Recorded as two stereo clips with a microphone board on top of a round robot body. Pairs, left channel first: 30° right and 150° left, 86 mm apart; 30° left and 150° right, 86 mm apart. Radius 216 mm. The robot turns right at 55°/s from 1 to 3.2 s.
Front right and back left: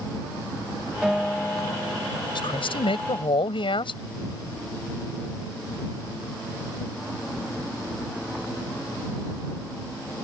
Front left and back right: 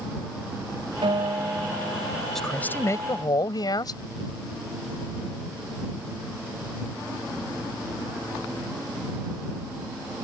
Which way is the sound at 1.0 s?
125° right.